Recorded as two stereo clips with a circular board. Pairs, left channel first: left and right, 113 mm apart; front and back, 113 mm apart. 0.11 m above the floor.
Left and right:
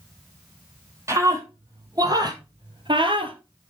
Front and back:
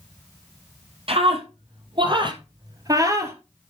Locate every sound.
1.1 s a scream: 150° right, 3 m; by 3.4 s 115° right, 2 m